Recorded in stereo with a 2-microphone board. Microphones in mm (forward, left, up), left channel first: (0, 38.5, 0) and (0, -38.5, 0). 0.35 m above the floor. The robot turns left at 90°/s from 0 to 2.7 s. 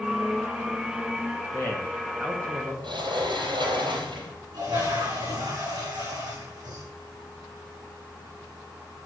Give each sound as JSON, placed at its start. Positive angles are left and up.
{"t": 1.5, "sound": "a man speaking", "azimuth_deg": 45, "distance_m": 2.5}
{"t": 2.8, "sound": "a sliding door", "side_deg": -85, "distance_m": 3.0}
{"t": 4.5, "sound": "a toilet flushing", "side_deg": -60, "distance_m": 6.5}